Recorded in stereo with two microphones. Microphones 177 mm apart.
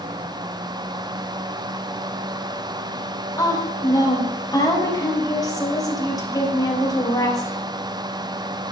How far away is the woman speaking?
About 5 m.